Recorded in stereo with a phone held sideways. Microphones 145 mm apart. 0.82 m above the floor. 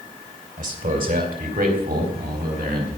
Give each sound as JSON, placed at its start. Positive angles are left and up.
{"t": 0.6, "sound": "a man speaking", "side_deg": -65, "distance_m": 3.5}